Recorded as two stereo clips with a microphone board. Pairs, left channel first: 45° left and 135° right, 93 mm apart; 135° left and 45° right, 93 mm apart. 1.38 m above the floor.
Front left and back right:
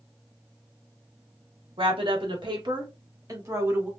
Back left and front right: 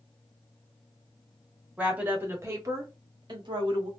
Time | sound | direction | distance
1.8 | a woman speaking | 120° right | 1.6 m